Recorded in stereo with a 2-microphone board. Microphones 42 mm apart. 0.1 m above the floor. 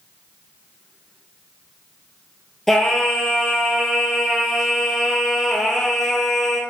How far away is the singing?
About 0.9 m.